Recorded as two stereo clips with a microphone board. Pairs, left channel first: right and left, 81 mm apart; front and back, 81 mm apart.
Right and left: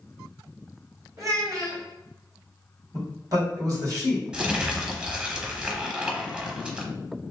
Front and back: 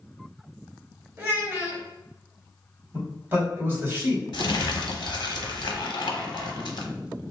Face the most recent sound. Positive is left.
turn(degrees=15)